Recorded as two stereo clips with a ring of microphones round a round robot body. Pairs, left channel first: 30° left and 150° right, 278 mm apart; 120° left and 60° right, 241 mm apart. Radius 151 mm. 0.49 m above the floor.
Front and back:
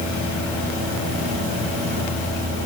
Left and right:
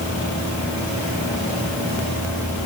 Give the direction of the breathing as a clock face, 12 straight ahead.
I don't hear breathing.